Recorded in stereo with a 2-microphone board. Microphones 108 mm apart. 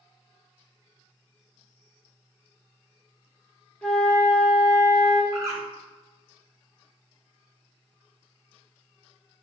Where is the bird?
30° right (ahead or behind), 0.8 m.